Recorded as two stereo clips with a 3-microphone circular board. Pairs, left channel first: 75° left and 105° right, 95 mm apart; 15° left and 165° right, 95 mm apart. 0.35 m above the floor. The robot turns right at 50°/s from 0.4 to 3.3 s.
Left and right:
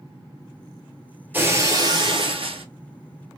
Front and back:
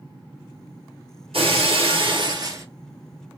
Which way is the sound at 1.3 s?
175° right.